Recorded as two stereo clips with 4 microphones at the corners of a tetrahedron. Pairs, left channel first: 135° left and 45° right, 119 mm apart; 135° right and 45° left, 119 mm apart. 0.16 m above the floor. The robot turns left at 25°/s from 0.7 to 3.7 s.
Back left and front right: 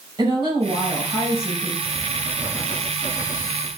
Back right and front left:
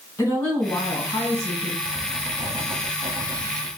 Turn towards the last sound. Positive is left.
turn(degrees=25)